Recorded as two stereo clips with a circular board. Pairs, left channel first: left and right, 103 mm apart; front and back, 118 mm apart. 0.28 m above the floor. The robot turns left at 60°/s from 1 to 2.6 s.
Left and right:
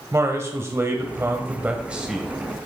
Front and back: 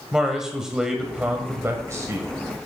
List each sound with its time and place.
0.1 s a man speaking: 100° right, 1.3 m; by 2.3 s 175° right, 1.3 m